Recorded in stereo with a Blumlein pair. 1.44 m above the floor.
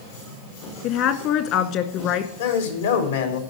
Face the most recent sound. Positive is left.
turn(degrees=65)